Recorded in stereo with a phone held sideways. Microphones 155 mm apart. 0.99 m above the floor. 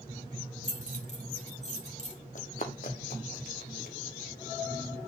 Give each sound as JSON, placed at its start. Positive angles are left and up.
{"t": 0.6, "sound": "keys jangling", "side_deg": 45, "distance_m": 2.0}
{"t": 2.4, "sound": "running footsteps", "side_deg": 55, "distance_m": 1.8}